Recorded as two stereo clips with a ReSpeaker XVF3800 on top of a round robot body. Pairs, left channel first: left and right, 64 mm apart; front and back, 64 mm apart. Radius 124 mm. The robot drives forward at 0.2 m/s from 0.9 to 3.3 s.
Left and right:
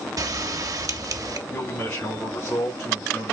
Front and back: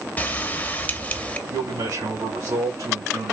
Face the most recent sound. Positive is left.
turn(degrees=165)